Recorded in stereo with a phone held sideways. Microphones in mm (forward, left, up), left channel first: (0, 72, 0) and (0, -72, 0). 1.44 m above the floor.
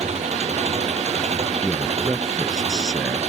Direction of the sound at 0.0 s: 50° right (ahead or behind).